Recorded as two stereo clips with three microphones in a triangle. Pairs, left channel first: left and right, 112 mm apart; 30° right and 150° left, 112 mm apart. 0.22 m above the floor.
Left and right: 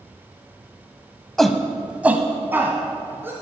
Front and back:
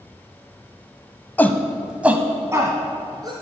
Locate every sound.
1.4 s a shout: 10° left, 1.0 m; by 3.3 s 155° right, 2 m